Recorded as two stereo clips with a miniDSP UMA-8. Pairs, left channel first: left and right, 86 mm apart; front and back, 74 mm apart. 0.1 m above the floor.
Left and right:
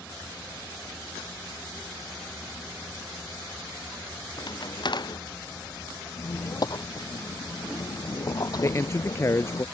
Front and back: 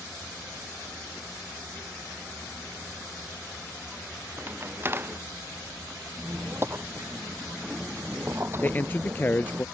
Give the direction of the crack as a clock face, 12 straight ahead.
8 o'clock.